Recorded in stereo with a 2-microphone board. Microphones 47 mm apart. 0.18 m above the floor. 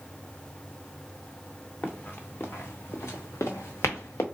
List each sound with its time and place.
1.8 s running footsteps: 40° left (ahead or behind), 1.2 m; by 4.2 s 70° left (ahead or behind), 1.2 m